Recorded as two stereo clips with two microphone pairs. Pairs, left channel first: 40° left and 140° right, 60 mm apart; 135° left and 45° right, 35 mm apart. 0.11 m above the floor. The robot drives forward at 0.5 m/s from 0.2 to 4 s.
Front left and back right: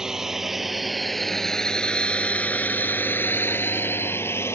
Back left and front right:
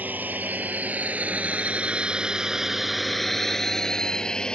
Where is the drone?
65° right; by 4.5 s 70° left.